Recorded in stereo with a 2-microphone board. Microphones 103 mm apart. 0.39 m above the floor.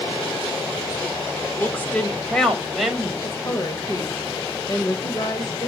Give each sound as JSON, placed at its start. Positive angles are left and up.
{"t": 1.6, "sound": "a woman speaking", "side_deg": 20, "distance_m": 1.5}
{"t": 3.2, "sound": "a woman speaking", "side_deg": 35, "distance_m": 1.4}